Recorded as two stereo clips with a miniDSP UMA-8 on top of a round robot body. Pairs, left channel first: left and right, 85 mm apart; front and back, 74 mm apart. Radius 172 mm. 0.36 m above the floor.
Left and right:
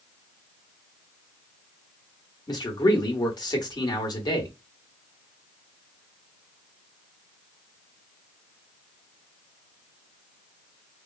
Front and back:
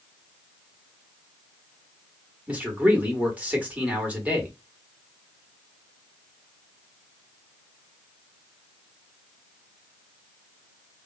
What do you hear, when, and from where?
2.5 s a man speaking: 115° left, 1.4 m